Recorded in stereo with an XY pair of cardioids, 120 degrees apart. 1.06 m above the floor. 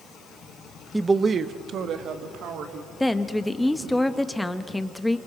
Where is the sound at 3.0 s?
5° left, 1.1 m.